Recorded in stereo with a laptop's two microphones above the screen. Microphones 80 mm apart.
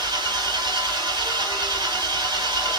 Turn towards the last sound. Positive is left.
turn(degrees=-60)  # may be behind; listen again after turning